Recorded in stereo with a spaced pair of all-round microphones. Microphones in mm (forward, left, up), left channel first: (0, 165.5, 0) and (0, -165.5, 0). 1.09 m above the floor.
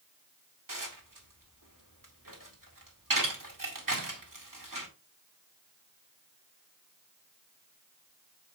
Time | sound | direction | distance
0.7 | dishes clattering | 75° right (ahead or behind) | 2 m